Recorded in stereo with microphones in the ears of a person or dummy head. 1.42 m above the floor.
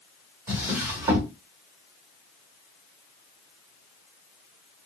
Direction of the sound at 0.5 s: 10° right (ahead or behind).